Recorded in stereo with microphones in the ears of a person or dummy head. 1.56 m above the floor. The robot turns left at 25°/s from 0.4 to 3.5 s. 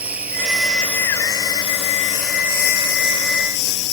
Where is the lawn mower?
175° right; by 3.9 s 110° left.